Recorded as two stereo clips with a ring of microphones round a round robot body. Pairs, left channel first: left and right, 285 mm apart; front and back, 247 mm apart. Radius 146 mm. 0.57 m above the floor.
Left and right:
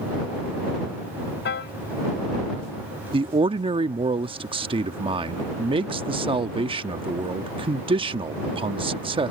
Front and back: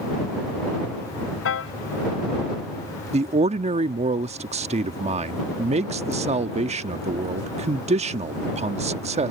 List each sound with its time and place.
1.4 s a piano: 35° left
3.1 s a man speaking: 145° right